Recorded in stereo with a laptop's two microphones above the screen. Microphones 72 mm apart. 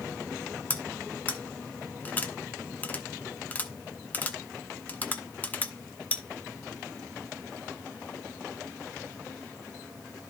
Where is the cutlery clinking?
25° left (ahead or behind), 1.0 m.